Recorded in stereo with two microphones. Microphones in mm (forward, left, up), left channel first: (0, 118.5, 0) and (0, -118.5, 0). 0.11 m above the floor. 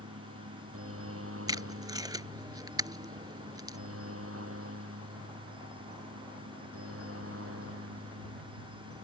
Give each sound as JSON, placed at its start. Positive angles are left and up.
{"t": 0.0, "sound": "a helicopter", "side_deg": -65}
{"t": 1.5, "sound": "tape being pulled", "side_deg": -15}